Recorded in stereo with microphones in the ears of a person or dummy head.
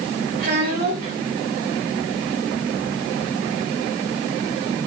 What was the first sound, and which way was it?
A child speaking, 50° right (ahead or behind).